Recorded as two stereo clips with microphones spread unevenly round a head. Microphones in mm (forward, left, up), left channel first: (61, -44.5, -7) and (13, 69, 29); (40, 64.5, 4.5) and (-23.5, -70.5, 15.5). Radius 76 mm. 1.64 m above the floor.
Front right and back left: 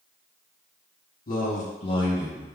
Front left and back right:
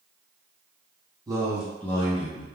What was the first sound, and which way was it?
A man speaking, 50° right.